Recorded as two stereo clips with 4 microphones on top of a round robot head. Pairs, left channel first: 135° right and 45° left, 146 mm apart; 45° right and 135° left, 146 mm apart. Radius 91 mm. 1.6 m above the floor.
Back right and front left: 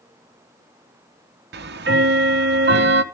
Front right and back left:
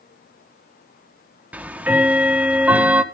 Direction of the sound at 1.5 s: 55° left.